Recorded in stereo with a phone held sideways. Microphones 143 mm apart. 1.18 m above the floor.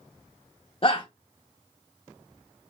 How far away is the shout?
About 0.7 m.